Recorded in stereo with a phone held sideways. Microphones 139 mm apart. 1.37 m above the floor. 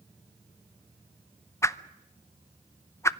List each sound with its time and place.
1.6 s a whoosh: 20° left (ahead or behind), 0.7 m